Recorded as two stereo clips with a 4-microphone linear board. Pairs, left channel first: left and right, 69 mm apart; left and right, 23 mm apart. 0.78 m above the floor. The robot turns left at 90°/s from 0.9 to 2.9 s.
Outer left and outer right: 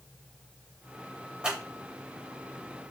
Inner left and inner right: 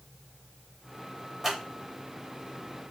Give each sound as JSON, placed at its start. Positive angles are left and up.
{"t": 1.4, "sound": "scissors", "side_deg": -15, "distance_m": 1.0}